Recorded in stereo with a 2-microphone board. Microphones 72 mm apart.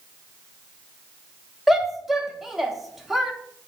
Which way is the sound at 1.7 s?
5° right (ahead or behind).